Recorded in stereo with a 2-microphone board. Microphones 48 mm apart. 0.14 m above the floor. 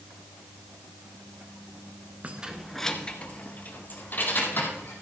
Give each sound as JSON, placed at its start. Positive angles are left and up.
{"t": 2.2, "sound": "keys jangling", "side_deg": -35, "distance_m": 1.0}